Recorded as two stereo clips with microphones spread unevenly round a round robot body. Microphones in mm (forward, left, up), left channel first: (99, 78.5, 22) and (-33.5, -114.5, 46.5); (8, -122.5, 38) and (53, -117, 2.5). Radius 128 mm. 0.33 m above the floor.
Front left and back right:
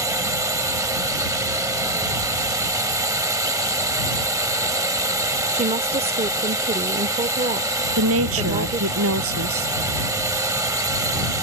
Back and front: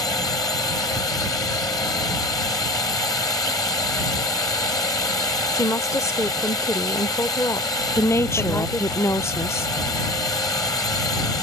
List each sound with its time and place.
0.0 s a drone: 155° left
5.5 s a woman speaking: 145° right
8.0 s a woman speaking: 165° right